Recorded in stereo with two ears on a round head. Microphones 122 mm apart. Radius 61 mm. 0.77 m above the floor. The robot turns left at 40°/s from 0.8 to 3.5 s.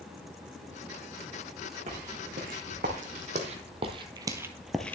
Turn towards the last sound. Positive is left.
turn(degrees=15)  # may be behind; listen again after turning